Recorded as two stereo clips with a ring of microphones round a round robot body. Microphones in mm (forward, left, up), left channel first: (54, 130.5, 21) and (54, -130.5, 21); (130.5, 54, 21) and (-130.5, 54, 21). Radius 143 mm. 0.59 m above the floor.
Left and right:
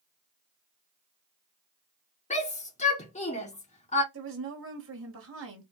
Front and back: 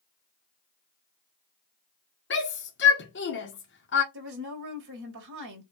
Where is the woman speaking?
130° right, 3.5 m.